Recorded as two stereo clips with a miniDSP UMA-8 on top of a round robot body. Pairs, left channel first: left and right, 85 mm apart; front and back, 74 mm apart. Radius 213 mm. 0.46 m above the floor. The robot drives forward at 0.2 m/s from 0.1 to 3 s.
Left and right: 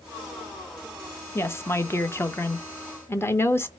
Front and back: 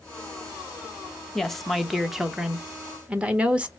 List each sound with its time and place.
1.4 s a woman speaking: 80° left, 1.1 m; by 3.7 s 120° left, 1.1 m